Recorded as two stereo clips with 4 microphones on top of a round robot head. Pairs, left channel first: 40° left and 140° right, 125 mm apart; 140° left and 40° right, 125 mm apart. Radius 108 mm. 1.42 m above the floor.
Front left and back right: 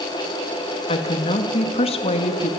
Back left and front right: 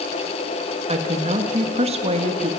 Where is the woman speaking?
Straight ahead, 1.8 m.